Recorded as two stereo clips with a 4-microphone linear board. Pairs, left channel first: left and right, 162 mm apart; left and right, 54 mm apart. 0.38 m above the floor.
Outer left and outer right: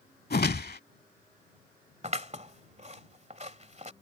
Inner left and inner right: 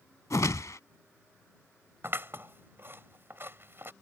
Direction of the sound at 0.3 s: 75° left (ahead or behind).